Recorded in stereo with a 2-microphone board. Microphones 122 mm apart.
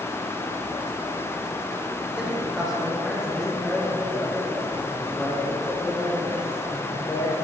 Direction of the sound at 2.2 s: 5° right (ahead or behind).